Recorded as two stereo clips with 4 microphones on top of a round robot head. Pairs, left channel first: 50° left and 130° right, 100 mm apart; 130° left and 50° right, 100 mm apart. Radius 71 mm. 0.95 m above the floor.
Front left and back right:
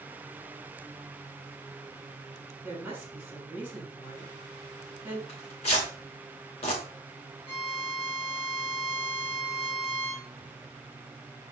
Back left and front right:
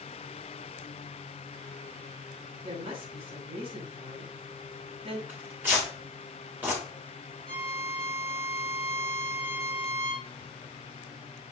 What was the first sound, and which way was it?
A woman speaking, 55° right.